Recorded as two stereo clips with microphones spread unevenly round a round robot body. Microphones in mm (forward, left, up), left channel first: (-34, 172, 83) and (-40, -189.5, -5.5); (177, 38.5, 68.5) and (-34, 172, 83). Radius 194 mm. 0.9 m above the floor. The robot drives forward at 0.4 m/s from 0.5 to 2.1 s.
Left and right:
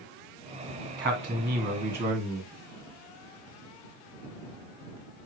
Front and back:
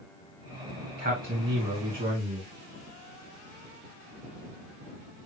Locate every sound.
1.0 s a man speaking: 160° right, 1.8 m; by 2.5 s 165° right, 2 m